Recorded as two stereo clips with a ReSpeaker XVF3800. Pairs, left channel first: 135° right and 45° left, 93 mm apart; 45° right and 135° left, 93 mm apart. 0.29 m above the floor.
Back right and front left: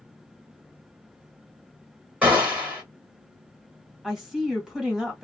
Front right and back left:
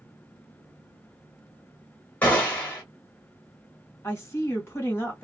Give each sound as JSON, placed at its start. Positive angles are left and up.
{"t": 2.2, "sound": "a gunshot", "azimuth_deg": -10, "distance_m": 1.6}
{"t": 4.0, "sound": "a woman speaking", "azimuth_deg": -35, "distance_m": 1.4}